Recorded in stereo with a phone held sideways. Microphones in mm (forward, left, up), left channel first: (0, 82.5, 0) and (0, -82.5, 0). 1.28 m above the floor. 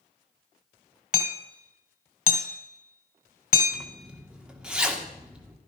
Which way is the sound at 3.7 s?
5° right (ahead or behind).